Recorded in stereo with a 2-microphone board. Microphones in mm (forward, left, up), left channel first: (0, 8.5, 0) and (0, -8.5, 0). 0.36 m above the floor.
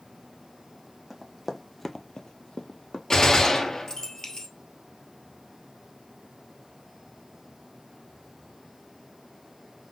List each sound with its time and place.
1.1 s running footsteps: 5° right (ahead or behind), 1.2 m; by 3.0 s 40° left (ahead or behind), 1.1 m
3.1 s a gunshot: 40° left (ahead or behind), 1.2 m